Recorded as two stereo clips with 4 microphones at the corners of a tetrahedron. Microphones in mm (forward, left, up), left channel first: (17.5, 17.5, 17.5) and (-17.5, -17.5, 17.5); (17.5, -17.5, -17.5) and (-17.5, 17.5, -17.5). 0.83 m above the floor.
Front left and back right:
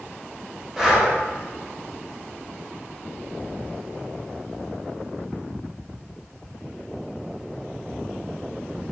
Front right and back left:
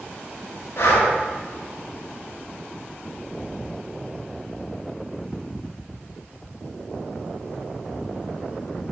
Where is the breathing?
45° right, 1.0 m.